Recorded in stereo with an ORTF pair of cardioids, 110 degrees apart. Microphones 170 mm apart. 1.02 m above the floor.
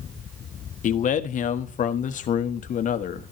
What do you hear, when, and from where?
0.8 s a man speaking: 50° left, 1.1 m